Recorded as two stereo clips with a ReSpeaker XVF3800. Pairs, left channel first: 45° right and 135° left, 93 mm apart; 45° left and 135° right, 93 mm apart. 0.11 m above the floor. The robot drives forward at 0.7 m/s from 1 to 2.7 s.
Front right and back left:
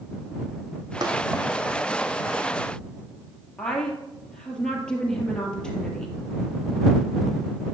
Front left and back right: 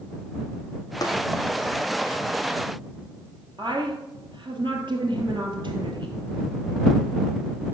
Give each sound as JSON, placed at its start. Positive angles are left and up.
{"t": 1.0, "sound": "tapping", "azimuth_deg": 90, "distance_m": 1.7}
{"t": 3.6, "sound": "a woman speaking", "azimuth_deg": -125, "distance_m": 2.5}